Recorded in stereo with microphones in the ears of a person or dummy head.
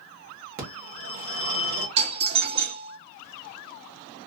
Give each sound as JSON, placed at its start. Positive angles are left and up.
{"t": 0.6, "sound": "a phone ringing", "side_deg": -45, "distance_m": 1.0}
{"t": 2.0, "sound": "a doorbell", "side_deg": -30, "distance_m": 0.7}